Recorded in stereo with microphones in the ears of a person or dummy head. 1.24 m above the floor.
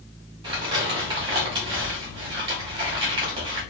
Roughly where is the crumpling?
Right.